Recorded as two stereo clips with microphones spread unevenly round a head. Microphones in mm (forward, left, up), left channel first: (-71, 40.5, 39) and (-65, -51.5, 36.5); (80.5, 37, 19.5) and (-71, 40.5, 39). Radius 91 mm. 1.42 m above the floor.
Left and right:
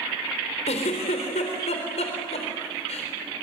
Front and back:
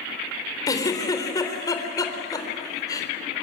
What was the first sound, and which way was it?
A giggle, 65° left.